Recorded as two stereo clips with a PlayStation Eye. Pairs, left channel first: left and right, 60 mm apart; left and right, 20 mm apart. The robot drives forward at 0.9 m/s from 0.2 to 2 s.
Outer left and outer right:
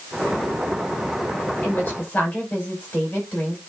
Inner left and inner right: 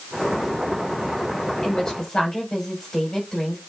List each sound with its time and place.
1.6 s a woman speaking: 25° left (ahead or behind), 5 m